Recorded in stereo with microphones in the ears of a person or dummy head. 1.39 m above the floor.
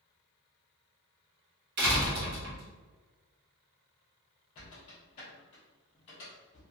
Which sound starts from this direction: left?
A squeak, at 4.5 s.